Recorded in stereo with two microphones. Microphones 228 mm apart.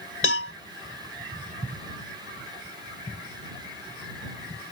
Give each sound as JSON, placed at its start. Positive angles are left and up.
{"t": 0.2, "sound": "a cowbell", "side_deg": 65}